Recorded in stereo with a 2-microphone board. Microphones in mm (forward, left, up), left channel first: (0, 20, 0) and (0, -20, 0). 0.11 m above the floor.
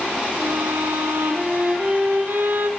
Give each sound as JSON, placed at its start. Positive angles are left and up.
{"t": 0.4, "sound": "a violin", "side_deg": -60, "distance_m": 2.0}